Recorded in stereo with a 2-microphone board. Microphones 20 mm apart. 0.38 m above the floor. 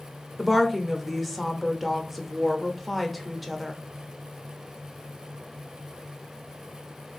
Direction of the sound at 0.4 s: 5° right (ahead or behind).